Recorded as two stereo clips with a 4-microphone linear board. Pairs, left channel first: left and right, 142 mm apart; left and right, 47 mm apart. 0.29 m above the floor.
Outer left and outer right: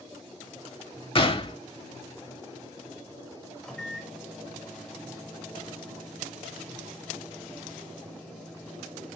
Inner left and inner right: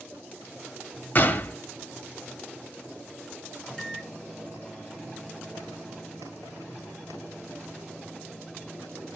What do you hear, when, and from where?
1.1 s a gunshot: 40° left (ahead or behind), 0.6 m
3.6 s a microwave: 5° left (ahead or behind), 1.0 m